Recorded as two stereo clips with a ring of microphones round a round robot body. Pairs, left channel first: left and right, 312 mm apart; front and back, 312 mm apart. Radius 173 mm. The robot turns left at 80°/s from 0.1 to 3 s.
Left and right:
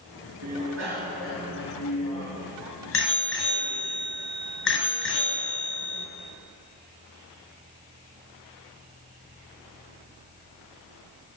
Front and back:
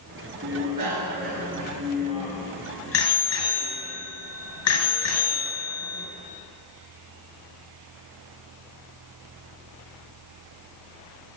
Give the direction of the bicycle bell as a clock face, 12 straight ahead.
4 o'clock.